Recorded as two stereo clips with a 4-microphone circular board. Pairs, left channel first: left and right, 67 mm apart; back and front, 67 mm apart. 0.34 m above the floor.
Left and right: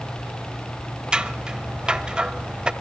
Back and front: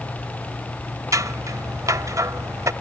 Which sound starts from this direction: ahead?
Scissors, at 1.1 s.